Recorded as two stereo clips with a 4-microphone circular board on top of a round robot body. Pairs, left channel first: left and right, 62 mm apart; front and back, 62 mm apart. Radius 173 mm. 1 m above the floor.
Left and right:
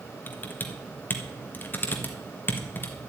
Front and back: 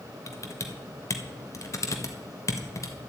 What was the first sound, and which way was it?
Typing on a keyboard, 35° left.